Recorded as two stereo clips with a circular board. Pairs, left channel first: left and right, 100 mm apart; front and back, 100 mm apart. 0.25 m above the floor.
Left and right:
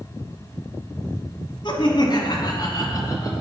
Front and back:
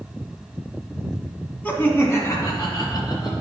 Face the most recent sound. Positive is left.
turn(degrees=40)